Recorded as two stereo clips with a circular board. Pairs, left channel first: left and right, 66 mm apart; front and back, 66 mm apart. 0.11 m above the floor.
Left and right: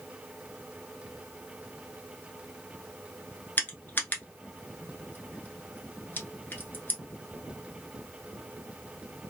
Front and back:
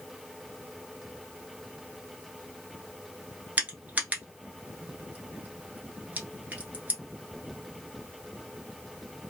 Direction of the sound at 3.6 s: 130° left.